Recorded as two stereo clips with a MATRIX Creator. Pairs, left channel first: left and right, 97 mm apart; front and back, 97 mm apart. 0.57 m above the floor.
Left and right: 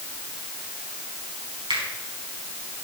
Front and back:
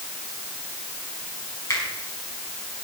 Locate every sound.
1.7 s a finger snap: 55° right, 4.5 m